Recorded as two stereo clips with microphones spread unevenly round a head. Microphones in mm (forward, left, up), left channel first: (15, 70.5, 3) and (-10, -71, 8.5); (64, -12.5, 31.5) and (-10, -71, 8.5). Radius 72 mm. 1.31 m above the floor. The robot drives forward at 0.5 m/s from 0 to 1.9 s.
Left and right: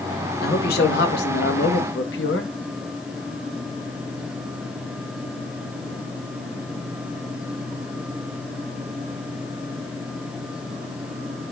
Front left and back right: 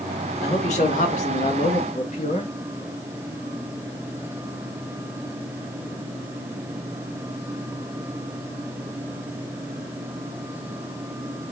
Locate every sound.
0.4 s a man speaking: 55° left, 2 m; by 2.5 s 80° left, 1.7 m